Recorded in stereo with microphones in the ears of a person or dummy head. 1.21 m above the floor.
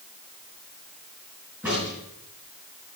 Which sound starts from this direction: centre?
A crack, at 1.6 s.